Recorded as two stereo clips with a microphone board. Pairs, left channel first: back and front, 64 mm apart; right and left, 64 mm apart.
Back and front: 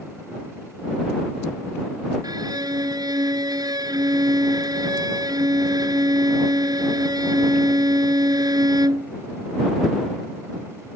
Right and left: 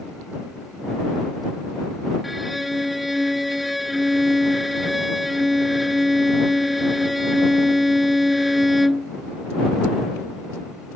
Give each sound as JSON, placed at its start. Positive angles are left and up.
{"t": 2.2, "sound": "a violin", "azimuth_deg": 0}